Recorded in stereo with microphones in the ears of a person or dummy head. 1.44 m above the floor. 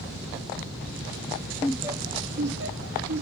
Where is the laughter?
10° left (ahead or behind), 0.6 m; by 3.2 s 75° right (ahead or behind), 1.4 m.